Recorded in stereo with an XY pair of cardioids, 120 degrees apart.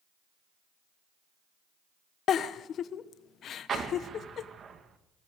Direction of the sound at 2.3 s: 55° left.